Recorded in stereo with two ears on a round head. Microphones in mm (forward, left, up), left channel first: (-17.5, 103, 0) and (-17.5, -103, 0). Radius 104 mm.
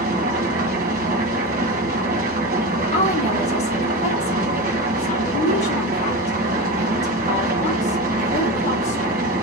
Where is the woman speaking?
30° left (ahead or behind), 1.4 m.